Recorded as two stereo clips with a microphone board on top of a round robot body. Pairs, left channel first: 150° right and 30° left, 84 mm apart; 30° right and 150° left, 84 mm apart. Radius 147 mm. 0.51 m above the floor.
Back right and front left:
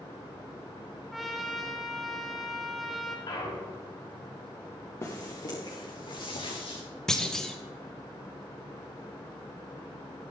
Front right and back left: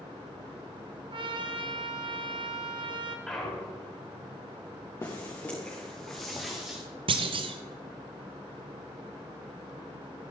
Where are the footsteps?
90° right, 3 m; by 6.8 s 125° right, 4 m.